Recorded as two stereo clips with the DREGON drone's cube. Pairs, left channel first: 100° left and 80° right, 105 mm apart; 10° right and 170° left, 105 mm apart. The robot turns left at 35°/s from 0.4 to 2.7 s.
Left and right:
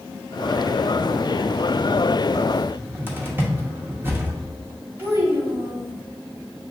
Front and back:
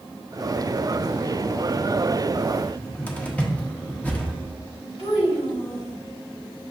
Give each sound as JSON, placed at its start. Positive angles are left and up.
{"t": 2.6, "sound": "a cupboard door", "azimuth_deg": -60, "distance_m": 0.7}
{"t": 5.0, "sound": "a child speaking", "azimuth_deg": -10, "distance_m": 1.7}